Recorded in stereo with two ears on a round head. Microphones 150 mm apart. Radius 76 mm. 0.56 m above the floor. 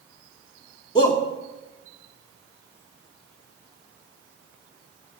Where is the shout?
25° left (ahead or behind), 1.3 m.